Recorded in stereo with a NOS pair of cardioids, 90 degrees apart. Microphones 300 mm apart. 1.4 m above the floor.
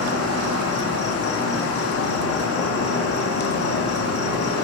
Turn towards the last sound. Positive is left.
turn(degrees=50)